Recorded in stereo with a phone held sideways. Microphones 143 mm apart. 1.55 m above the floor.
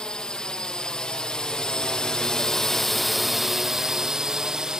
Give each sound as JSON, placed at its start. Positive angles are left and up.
{"t": 0.0, "sound": "a drone", "side_deg": 5}